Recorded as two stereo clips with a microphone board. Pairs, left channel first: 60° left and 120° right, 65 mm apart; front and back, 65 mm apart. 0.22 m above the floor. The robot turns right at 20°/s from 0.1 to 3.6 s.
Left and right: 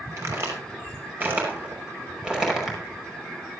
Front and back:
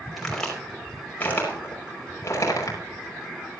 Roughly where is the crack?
Right.